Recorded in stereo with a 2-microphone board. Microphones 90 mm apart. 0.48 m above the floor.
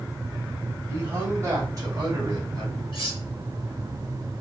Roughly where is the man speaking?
Right.